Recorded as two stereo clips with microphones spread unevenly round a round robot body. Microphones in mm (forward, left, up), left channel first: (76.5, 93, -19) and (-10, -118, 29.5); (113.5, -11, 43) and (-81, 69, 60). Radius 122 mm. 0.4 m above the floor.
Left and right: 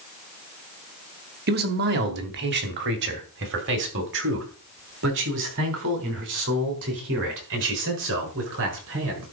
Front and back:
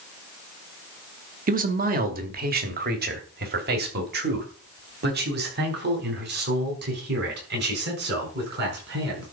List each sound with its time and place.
1.5 s a man speaking: 160° right, 1.7 m